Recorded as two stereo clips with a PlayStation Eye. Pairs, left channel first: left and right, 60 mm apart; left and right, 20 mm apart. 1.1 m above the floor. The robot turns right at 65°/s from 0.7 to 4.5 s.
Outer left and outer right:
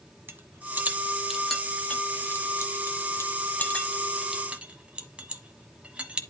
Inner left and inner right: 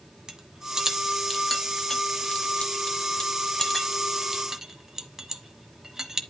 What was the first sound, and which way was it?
A rattle, 35° right (ahead or behind).